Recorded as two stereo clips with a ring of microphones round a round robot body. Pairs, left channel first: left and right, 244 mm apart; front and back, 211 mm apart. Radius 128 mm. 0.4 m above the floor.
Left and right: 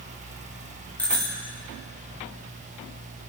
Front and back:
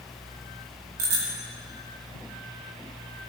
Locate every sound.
1.0 s a bicycle bell: 175° left, 4 m